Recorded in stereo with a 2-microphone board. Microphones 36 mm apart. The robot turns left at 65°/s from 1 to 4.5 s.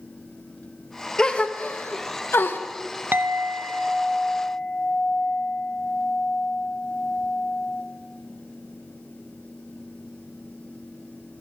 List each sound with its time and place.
1.2 s a gasp: 15° left (ahead or behind), 0.8 m; by 2.6 s 70° left (ahead or behind), 0.8 m
3.1 s a clink: 110° right, 0.6 m; by 7.8 s 160° left, 0.6 m